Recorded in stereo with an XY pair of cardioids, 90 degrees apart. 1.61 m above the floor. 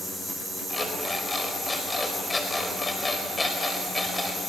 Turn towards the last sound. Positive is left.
turn(degrees=20)